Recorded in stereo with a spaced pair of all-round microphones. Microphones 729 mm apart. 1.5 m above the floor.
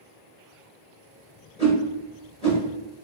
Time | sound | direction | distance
1.6 | a whoosh | 10° left (ahead or behind) | 1.5 m